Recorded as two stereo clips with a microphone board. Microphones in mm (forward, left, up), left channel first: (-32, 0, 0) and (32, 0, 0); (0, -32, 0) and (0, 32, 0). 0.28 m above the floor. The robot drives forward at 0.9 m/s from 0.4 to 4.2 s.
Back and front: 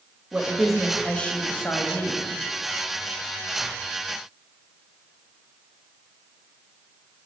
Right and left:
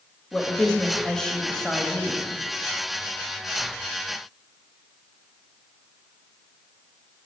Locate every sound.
0.3 s a woman speaking: 35° right, 1.1 m; by 2.3 s 170° right, 1.8 m